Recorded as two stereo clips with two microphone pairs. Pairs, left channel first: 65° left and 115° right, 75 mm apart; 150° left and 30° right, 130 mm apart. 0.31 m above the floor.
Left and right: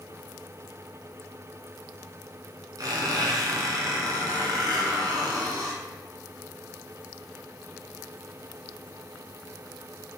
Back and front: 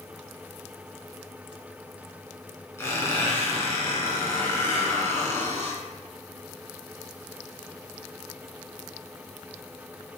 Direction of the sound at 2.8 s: 140° right.